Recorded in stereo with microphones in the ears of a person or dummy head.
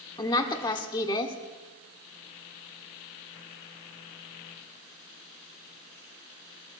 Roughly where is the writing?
I don't hear writing.